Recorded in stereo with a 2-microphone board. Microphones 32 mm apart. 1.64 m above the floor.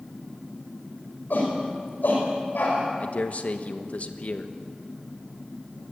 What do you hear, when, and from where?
1.3 s a shout: 70° left (ahead or behind), 6 m
3.0 s a man speaking: 45° left (ahead or behind), 1.3 m